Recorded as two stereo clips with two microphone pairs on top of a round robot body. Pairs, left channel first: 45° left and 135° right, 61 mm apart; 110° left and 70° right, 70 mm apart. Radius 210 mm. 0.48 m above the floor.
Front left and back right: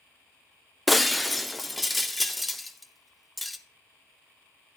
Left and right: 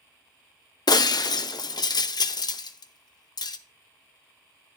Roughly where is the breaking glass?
Behind left.